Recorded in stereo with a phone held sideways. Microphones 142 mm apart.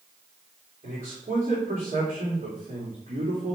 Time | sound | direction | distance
0.8 | a man speaking | 70° right (ahead or behind) | 2.5 m